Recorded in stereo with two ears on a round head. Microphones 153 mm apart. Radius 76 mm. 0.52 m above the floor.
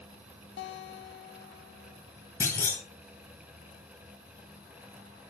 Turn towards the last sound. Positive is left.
turn(degrees=15)  # may be behind; listen again after turning